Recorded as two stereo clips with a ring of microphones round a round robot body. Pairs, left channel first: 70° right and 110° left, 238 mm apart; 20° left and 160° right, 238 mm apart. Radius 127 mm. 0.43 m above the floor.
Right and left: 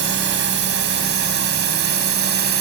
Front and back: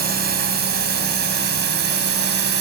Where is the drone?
155° left; by 2.6 s 160° left.